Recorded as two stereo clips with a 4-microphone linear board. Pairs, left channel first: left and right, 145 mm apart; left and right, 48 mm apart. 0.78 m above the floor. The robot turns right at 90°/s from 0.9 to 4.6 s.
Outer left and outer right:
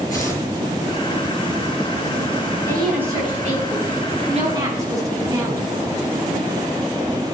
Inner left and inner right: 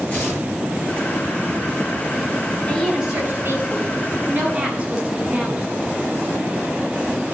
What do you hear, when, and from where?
0.1 s tearing paper: 25° left (ahead or behind), 6.5 m
2.6 s a woman speaking: 160° left, 7 m; by 5.7 s 25° right, 7 m